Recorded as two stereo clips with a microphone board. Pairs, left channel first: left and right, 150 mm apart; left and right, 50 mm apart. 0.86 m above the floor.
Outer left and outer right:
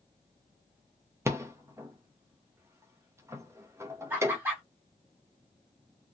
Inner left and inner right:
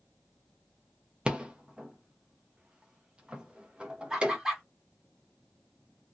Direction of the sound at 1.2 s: 20° right (ahead or behind).